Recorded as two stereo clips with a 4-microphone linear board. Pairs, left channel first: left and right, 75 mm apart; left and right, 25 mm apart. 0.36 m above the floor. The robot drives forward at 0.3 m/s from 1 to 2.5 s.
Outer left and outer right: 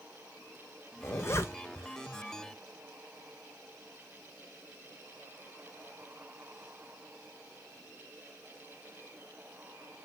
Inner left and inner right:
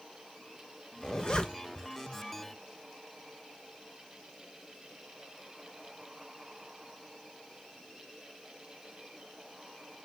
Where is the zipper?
35° left (ahead or behind), 0.6 m.